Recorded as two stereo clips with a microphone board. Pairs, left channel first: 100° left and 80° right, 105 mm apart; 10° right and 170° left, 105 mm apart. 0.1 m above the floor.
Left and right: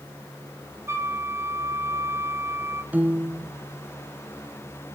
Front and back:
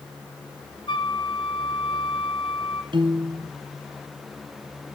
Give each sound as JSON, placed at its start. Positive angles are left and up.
{"t": 0.9, "sound": "a flute", "azimuth_deg": -25, "distance_m": 1.2}
{"t": 2.9, "sound": "a piano", "azimuth_deg": -150, "distance_m": 1.2}